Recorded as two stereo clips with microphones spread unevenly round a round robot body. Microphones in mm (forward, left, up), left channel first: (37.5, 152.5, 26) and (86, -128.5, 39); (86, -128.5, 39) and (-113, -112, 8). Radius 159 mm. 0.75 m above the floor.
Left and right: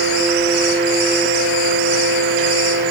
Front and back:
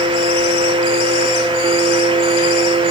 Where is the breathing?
No breathing in this recording.